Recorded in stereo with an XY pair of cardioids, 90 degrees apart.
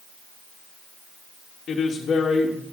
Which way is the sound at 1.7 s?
55° left.